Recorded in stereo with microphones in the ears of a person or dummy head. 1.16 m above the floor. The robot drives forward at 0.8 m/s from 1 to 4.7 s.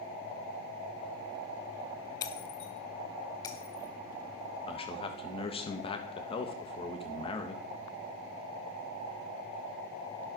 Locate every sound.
2.2 s breaking glass: 20° left (ahead or behind), 0.8 m; by 3.9 s 10° left (ahead or behind), 1.4 m
4.7 s a man speaking: 25° left (ahead or behind), 1.3 m